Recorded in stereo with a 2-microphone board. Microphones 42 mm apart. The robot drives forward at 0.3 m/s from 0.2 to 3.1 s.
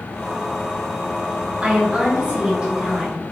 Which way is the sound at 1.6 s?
25° right (ahead or behind).